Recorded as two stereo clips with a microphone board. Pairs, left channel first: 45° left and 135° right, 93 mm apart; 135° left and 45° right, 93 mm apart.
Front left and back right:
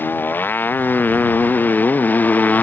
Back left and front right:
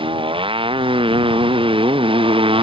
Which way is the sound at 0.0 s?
25° right.